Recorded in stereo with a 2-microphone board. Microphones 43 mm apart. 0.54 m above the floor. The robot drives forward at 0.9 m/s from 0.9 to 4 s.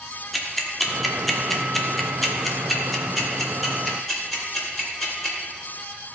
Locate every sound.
0.3 s ticking: centre (ahead or behind), 1.2 m